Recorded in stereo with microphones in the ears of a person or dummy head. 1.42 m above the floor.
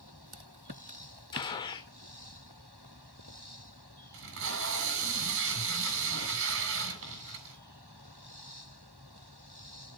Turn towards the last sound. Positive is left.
turn(degrees=-75)  # may be behind; listen again after turning